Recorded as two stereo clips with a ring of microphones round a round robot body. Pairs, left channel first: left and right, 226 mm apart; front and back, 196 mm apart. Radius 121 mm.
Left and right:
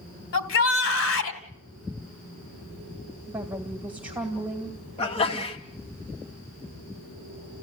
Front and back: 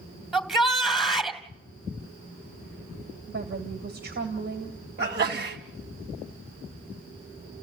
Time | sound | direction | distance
0.3 | a shout | 90° left | 3 m
3.3 | a woman speaking | 170° right | 2.5 m
5.0 | a sneeze | 150° left | 2.5 m